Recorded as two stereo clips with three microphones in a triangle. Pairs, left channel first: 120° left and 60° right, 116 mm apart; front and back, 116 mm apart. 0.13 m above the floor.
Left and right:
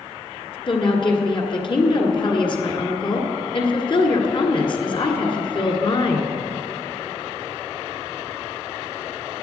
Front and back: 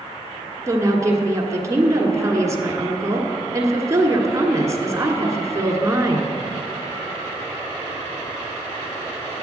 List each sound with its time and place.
0.7 s a woman speaking: 130° left, 1.4 m